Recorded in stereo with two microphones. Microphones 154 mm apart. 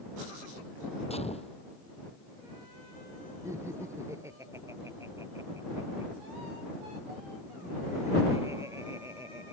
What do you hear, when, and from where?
1.1 s a gunshot: 45° left (ahead or behind)
3.5 s laughter: 20° right (ahead or behind)